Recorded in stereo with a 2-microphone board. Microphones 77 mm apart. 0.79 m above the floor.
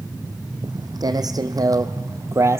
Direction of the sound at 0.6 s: 60° right (ahead or behind).